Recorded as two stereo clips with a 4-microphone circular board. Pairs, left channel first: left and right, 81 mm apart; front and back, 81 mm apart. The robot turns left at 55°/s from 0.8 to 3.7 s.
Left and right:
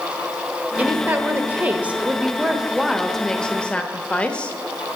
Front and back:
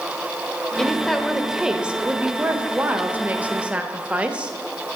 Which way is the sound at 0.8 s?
70° right.